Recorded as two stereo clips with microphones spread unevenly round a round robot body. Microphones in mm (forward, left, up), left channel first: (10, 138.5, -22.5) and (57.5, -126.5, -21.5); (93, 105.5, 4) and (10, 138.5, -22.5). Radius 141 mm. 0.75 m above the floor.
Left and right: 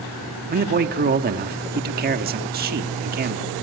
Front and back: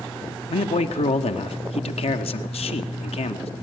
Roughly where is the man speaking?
Ahead right.